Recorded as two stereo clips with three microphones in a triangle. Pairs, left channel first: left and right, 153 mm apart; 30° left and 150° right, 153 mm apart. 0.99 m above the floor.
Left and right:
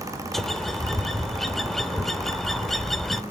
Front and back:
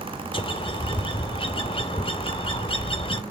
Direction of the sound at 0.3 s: 5° left.